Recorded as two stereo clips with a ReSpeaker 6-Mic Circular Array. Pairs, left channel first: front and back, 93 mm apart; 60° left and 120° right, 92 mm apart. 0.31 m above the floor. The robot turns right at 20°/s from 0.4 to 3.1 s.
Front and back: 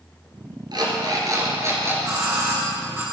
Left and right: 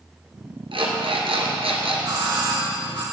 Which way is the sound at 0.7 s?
145° right.